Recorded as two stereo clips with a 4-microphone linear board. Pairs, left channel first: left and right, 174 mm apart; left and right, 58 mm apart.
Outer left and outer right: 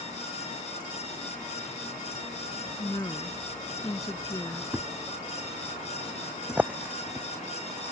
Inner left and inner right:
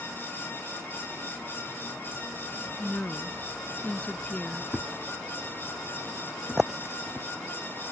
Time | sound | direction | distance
2.8 | a woman speaking | 20° left (ahead or behind) | ?
4.7 | a thud | 10° right (ahead or behind) | ?